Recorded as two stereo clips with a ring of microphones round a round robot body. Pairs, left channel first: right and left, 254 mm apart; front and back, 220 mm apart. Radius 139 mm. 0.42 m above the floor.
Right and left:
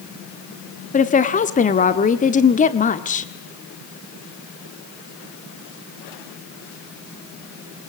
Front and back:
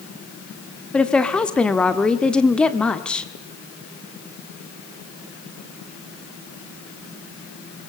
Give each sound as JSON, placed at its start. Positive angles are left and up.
{"t": 0.9, "sound": "a woman speaking", "azimuth_deg": -80, "distance_m": 1.4}